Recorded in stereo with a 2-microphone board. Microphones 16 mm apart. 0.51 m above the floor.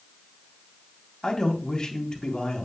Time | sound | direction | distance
1.2 | a man speaking | 40° left (ahead or behind) | 3.5 m